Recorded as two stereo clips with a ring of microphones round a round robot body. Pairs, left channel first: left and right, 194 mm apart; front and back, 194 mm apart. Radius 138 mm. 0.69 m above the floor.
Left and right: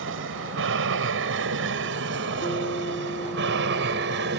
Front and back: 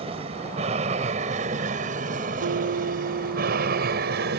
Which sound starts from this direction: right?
An aircraft, at 0.0 s.